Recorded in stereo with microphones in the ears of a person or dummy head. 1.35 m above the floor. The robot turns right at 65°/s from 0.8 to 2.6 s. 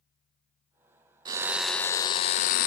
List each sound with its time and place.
1.2 s a drill: 30° right, 0.6 m; by 2.7 s 60° left, 0.6 m